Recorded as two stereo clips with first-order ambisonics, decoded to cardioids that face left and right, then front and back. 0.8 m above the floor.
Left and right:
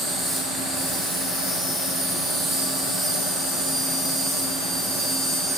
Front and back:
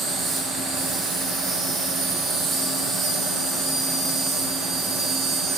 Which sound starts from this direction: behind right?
An insect, at 0.0 s.